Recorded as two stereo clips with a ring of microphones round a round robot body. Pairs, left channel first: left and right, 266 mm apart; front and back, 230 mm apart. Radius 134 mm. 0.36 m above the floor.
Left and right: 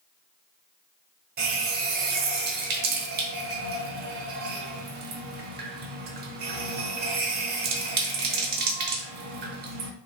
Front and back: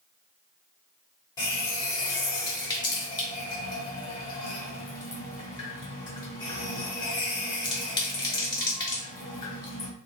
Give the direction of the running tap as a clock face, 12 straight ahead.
2 o'clock.